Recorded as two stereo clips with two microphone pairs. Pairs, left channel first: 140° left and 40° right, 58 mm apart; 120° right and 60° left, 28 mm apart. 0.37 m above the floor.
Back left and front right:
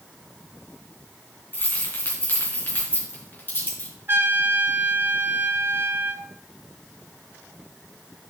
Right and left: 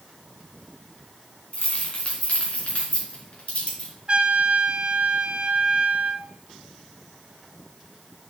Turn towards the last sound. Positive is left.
turn(degrees=10)